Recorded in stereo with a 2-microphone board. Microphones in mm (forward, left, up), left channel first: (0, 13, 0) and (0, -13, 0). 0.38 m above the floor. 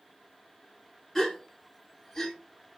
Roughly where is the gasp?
Centre.